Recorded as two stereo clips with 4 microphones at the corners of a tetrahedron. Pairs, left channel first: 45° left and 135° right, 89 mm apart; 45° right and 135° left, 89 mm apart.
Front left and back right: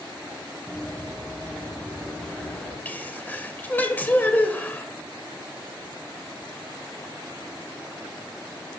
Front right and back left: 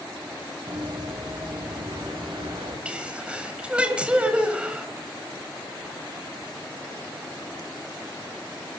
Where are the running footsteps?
120° left, 4.5 m.